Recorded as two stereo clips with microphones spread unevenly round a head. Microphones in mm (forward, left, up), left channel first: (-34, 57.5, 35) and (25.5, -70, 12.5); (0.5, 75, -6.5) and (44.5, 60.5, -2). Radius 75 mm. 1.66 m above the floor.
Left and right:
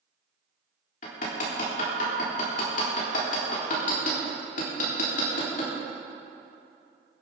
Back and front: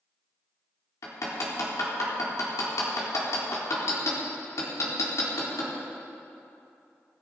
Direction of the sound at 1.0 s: 150° left.